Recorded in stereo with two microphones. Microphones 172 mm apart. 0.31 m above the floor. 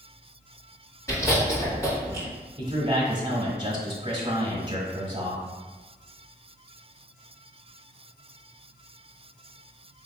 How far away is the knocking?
I don't hear knocking.